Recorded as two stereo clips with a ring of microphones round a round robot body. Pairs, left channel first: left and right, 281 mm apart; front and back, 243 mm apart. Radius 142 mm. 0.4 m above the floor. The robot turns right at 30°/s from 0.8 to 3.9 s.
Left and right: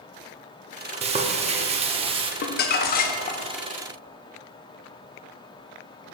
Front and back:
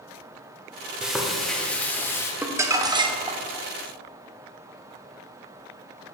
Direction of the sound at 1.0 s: 95° right.